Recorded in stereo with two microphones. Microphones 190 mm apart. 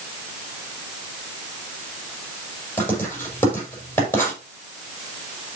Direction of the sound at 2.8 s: 10° left (ahead or behind).